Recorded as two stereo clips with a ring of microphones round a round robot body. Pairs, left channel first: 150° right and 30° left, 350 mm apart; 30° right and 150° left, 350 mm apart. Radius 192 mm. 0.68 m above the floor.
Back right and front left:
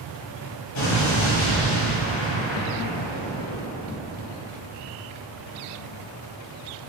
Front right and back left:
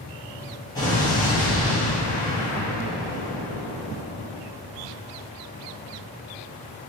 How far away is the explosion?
About 0.9 m.